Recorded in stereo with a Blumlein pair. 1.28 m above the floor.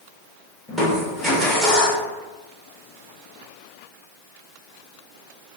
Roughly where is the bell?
I don't hear a bell.